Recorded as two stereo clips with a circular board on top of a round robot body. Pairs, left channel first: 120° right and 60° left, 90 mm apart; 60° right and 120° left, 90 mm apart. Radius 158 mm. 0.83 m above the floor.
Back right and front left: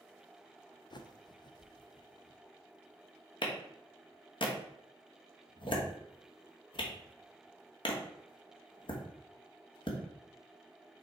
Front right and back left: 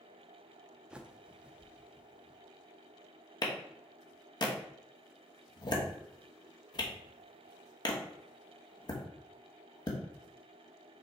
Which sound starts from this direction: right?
A clap, at 3.4 s.